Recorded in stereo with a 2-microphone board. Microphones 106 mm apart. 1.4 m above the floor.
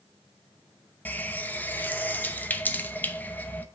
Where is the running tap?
15° left (ahead or behind), 0.7 m.